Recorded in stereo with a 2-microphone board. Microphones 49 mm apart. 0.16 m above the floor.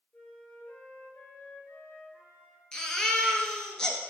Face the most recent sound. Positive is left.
turn(degrees=15)  # may be behind; listen again after turning